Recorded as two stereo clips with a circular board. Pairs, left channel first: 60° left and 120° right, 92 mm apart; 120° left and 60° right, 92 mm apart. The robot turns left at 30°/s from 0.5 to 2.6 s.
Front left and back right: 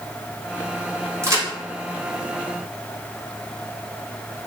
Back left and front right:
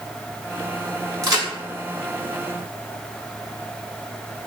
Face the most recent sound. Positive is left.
turn(degrees=-130)